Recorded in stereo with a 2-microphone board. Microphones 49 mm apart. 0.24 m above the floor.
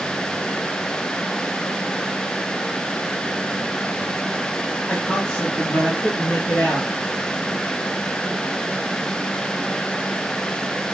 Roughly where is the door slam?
No door slam in this recording.